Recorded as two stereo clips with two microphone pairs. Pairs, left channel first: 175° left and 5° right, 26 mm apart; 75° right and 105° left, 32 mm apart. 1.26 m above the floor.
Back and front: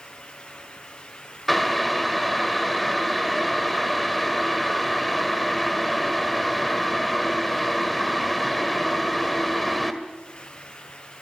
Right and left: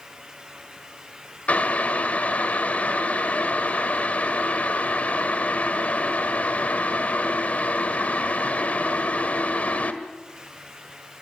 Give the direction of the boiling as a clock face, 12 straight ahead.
3 o'clock.